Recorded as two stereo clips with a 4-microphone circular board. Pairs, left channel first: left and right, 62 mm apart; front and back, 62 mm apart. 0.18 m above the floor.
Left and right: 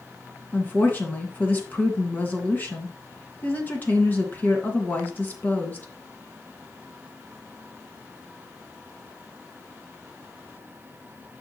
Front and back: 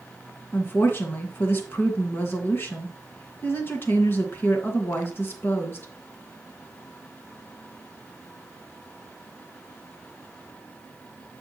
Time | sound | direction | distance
0.5 | a woman speaking | 40° left | 2 m